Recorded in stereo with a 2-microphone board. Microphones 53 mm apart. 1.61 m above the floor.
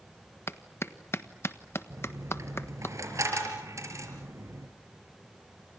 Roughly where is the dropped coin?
Right.